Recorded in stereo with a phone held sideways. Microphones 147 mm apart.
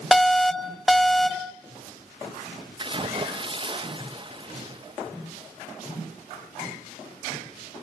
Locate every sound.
0.1 s an alarm: centre (ahead or behind), 0.6 m
2.8 s a splash: 35° right (ahead or behind), 0.6 m